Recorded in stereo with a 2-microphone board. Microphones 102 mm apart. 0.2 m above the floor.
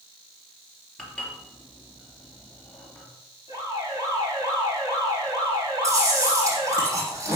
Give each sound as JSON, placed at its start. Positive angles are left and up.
{"t": 1.0, "sound": "dishes clattering", "side_deg": 10, "distance_m": 3.0}
{"t": 3.5, "sound": "an alarm", "side_deg": -35, "distance_m": 7.0}
{"t": 5.8, "sound": "chewing", "side_deg": -30, "distance_m": 7.0}